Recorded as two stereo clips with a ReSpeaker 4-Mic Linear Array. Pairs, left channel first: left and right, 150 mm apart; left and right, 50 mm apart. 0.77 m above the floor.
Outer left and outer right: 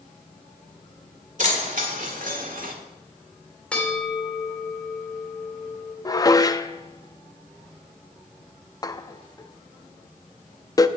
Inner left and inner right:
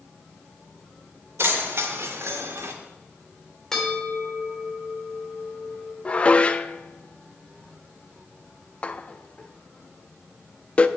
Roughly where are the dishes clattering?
Left.